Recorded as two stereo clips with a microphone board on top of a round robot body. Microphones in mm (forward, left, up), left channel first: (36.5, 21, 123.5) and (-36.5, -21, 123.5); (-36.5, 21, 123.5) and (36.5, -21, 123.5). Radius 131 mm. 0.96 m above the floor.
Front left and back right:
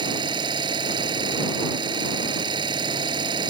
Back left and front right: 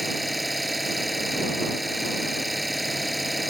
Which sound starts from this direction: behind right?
An engine running, at 0.0 s.